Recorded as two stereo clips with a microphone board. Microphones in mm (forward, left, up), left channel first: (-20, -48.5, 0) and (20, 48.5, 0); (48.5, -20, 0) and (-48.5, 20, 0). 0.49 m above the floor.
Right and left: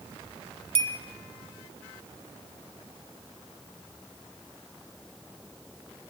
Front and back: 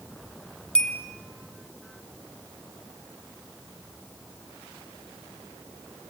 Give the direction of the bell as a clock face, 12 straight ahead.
10 o'clock.